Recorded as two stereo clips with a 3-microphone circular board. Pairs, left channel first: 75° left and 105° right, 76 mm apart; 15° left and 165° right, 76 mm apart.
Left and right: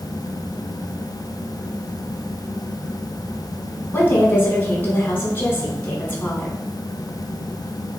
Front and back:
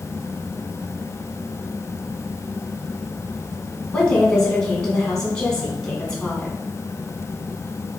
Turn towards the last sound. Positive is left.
turn(degrees=80)